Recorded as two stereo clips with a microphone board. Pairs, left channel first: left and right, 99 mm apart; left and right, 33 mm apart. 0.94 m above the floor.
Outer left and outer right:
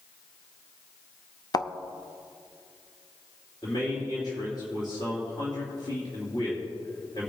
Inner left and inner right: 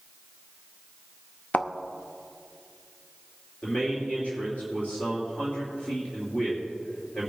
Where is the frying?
I don't hear frying.